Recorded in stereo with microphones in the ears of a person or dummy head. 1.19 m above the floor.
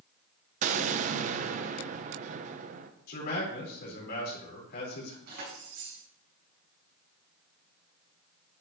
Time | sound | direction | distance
0.6 | an explosion | 45° right (ahead or behind) | 0.8 m
3.1 | a man speaking | 55° left (ahead or behind) | 4.5 m
5.3 | keys jangling | 50° right (ahead or behind) | 6 m